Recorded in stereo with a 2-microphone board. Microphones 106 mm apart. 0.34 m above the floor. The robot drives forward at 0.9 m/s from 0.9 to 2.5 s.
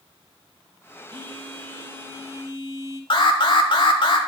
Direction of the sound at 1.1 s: 50° right (ahead or behind).